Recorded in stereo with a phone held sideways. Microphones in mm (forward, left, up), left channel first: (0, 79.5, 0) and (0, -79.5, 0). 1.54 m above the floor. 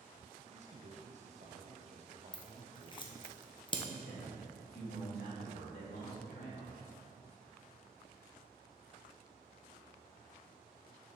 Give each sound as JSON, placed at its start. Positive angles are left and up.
{"t": 0.5, "sound": "a man speaking", "side_deg": -45, "distance_m": 0.7}
{"t": 2.3, "sound": "scissors", "side_deg": 30, "distance_m": 0.8}
{"t": 3.9, "sound": "a man speaking", "side_deg": 80, "distance_m": 2.5}